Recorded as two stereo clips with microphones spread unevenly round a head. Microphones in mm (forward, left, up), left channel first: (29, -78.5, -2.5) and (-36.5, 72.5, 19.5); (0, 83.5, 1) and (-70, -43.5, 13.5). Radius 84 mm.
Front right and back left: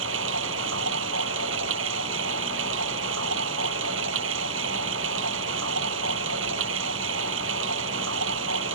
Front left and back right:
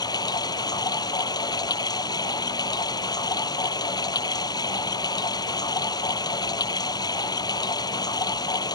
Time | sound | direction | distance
0.0 | running water | 125° left | ?